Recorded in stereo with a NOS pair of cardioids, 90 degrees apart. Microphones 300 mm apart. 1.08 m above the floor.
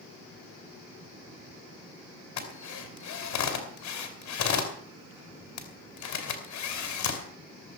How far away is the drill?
About 3.5 m.